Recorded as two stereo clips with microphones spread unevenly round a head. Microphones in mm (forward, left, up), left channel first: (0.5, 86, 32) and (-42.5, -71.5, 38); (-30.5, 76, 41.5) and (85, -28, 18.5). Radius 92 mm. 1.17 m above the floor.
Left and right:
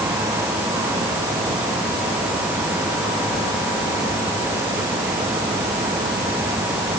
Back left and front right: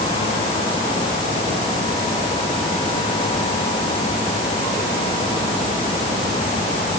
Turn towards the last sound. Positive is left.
No sound to turn to.